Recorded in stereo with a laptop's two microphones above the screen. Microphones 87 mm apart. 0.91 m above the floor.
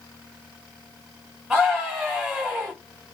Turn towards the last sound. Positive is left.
turn(degrees=0)  # may be behind; listen again after turning